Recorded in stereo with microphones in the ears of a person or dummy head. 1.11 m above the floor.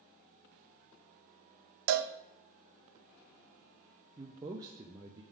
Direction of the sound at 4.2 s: 20° right (ahead or behind).